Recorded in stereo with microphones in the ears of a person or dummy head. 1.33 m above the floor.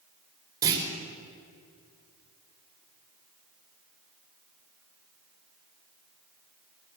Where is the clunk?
15° right (ahead or behind), 4.5 m.